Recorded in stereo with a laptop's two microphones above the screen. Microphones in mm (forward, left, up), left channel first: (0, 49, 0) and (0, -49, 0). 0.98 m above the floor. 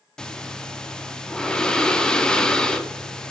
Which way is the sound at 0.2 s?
5° left (ahead or behind).